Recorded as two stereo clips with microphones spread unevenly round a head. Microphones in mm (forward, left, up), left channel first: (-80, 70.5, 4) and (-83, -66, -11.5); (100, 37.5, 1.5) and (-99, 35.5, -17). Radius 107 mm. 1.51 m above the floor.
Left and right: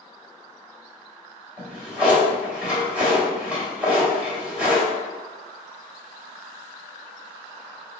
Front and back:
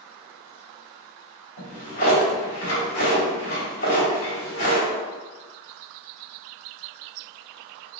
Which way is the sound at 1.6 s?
Straight ahead.